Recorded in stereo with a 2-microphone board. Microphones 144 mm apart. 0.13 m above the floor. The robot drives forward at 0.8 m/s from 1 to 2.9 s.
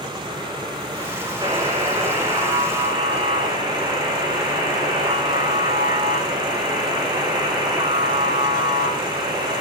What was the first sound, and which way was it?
A buzzer, 30° right (ahead or behind).